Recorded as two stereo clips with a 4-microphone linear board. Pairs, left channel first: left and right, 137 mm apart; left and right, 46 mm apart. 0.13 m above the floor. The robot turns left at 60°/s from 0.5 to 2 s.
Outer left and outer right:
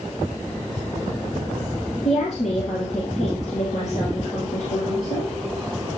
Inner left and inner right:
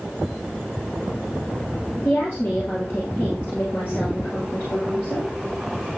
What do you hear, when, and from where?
2.0 s a woman speaking: 60° left (ahead or behind), 3 m